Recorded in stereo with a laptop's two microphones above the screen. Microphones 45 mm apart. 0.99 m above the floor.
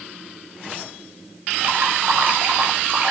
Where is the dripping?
40° right (ahead or behind), 4 m.